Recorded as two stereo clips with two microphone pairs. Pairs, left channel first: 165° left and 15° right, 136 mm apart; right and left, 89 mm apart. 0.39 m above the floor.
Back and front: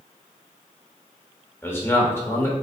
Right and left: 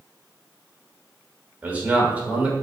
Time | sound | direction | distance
1.6 | a man speaking | 125° left | 0.8 m